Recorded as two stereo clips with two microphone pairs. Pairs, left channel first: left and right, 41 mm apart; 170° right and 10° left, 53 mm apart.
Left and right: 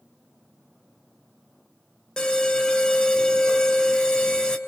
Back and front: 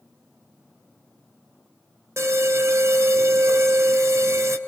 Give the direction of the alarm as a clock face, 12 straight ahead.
11 o'clock.